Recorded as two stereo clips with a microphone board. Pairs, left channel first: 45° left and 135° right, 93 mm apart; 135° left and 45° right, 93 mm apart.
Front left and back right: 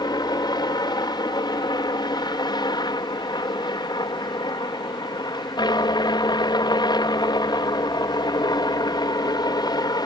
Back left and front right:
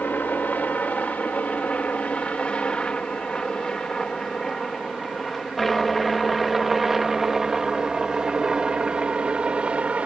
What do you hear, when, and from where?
0.0 s a helicopter: 70° left; by 10.1 s 30° left